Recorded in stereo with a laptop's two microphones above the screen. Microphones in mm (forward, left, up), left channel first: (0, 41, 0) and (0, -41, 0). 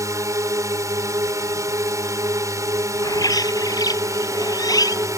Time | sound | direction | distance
0.0 | a drone | 40° right (ahead or behind) | ?
3.0 | a bird | 50° left (ahead or behind) | ?